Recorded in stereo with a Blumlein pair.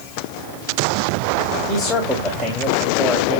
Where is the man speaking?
5° left, 3 m.